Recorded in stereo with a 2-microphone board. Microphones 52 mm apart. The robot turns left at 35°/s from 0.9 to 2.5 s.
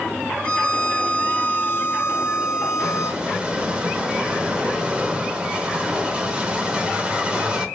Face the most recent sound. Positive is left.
turn(degrees=-20)  # may be behind; listen again after turning